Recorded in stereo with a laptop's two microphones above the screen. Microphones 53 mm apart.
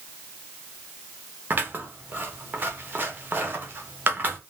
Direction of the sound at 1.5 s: 40° right (ahead or behind).